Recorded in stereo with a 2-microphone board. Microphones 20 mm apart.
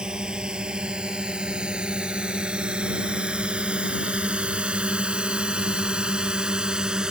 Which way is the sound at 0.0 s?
45° right (ahead or behind).